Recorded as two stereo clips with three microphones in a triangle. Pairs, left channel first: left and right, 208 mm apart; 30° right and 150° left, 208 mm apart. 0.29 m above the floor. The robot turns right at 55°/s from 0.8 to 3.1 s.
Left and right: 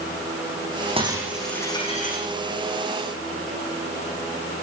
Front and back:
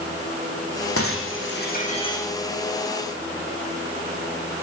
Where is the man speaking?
No man speaking in this recording.